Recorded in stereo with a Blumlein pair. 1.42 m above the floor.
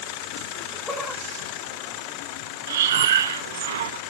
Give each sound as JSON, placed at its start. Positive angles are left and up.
{"t": 0.5, "sound": "laughter", "azimuth_deg": 10, "distance_m": 6.5}
{"t": 2.7, "sound": "breathing", "azimuth_deg": -60, "distance_m": 0.8}